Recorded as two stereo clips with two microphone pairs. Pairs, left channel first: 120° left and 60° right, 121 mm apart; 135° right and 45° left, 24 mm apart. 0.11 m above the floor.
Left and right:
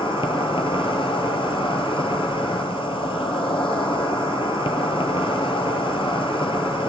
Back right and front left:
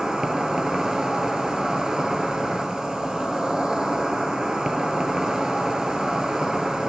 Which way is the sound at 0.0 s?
95° left.